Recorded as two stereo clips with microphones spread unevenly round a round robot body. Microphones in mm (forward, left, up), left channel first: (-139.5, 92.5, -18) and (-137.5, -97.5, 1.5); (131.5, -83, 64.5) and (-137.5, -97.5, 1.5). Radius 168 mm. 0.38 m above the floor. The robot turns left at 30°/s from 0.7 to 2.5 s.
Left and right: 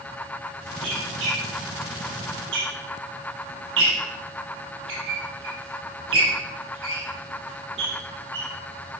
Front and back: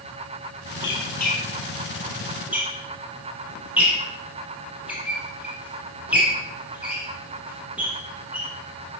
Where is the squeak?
40° right, 4.5 m; by 8.5 s 90° right, 4.5 m.